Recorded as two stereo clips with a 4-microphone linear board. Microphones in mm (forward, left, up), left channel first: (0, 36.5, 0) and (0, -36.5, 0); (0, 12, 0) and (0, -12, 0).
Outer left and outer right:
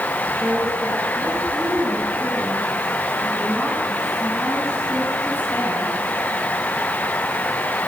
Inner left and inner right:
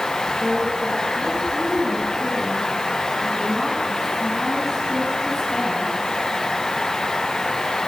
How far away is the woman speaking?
About 7.5 m.